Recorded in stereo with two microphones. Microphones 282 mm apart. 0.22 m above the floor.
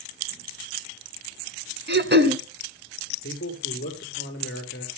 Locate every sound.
1.9 s throat clearing: 40° right (ahead or behind), 1.2 m
3.2 s a man speaking: 45° left (ahead or behind), 4.5 m